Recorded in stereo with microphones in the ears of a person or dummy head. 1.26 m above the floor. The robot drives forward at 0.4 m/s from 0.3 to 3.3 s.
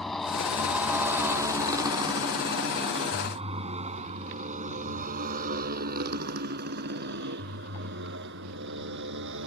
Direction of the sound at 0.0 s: 5° left (ahead or behind).